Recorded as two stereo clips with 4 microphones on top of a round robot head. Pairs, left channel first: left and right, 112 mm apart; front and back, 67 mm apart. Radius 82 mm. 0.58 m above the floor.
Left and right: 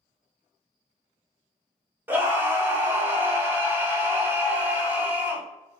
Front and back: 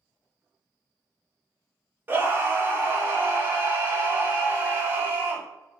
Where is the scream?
150° right, 0.9 m.